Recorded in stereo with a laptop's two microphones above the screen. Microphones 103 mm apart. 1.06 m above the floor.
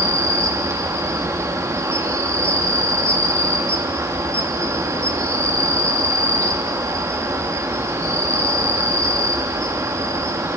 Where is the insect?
30° right (ahead or behind), 0.9 m.